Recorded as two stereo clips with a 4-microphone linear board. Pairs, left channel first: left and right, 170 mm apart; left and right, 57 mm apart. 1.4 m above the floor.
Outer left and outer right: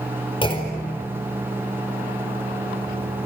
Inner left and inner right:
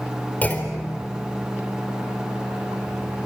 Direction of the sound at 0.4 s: 30° left (ahead or behind).